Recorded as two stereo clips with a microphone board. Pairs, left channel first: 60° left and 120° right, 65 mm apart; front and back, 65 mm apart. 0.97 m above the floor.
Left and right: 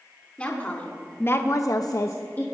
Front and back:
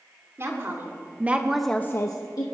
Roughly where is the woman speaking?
Behind left.